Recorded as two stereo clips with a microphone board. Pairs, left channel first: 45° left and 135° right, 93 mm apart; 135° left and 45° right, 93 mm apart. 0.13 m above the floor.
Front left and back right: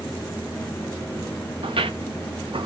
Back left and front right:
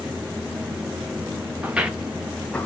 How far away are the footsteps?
About 1.1 m.